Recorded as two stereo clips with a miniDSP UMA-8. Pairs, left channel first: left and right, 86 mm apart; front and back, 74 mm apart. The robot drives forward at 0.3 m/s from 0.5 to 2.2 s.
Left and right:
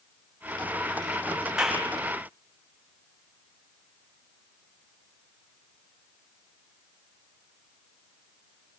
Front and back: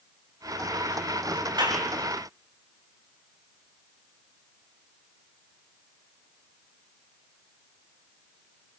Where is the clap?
175° right, 9 m.